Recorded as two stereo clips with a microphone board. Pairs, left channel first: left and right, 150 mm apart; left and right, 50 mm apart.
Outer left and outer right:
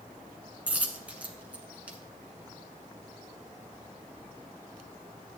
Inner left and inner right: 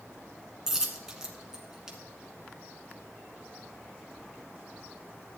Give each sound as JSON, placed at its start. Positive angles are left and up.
{"t": 0.7, "sound": "a dropped coin", "side_deg": -10, "distance_m": 1.5}